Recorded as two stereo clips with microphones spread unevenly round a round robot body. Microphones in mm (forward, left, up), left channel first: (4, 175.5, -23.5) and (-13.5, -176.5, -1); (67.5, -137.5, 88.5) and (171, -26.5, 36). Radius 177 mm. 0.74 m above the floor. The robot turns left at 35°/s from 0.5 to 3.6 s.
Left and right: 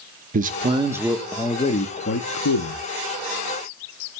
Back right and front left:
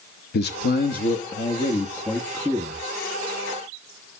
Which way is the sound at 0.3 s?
160° right.